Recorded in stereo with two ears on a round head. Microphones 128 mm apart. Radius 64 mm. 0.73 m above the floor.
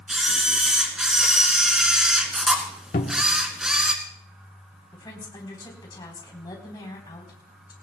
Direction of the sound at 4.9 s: 30° left (ahead or behind).